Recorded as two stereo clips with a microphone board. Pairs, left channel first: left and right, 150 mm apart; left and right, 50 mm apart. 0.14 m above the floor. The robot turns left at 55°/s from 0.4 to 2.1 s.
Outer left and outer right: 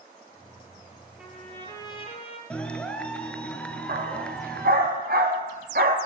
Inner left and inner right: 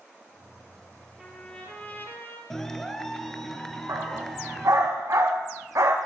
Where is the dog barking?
75° right (ahead or behind), 5.5 m.